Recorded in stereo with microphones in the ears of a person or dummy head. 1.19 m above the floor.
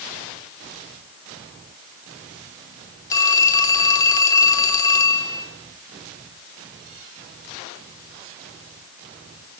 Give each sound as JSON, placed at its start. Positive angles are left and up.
{"t": 3.1, "sound": "a phone ringing", "side_deg": 20, "distance_m": 2.5}